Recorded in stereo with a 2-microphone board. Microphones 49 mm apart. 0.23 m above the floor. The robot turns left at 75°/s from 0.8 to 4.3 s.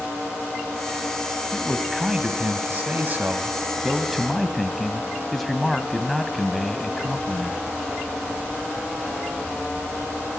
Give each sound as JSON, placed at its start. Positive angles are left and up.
{"t": 1.5, "sound": "a man speaking", "azimuth_deg": 20, "distance_m": 1.4}